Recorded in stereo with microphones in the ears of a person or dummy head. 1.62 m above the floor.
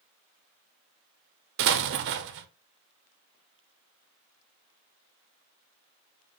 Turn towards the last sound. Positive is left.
turn(degrees=-60)  # may be behind; listen again after turning